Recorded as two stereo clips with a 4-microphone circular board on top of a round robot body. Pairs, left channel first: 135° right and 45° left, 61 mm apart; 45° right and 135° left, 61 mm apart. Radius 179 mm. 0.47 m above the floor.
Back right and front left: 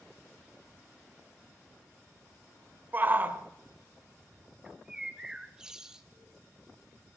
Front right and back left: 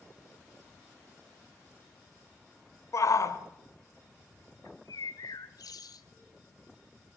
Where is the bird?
35° right, 1.3 m.